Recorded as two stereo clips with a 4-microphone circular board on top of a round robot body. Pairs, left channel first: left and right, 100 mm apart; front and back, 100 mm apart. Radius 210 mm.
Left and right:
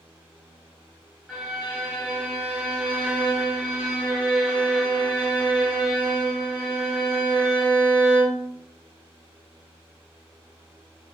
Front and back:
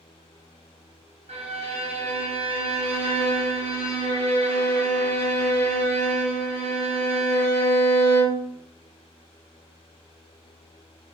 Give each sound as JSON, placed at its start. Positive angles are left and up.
{"t": 1.3, "sound": "a violin", "azimuth_deg": -175, "distance_m": 1.2}